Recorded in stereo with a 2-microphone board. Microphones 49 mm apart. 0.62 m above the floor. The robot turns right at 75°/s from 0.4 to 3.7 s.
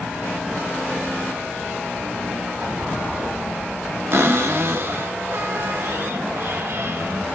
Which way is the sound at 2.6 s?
140° right.